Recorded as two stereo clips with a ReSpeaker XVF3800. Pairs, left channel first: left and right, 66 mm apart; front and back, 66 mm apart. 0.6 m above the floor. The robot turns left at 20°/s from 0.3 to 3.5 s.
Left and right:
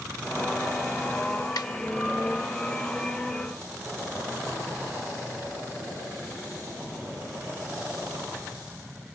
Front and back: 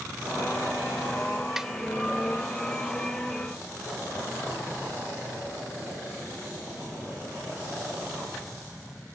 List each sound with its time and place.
1.6 s a snare drum: 100° left; by 1.7 s 95° left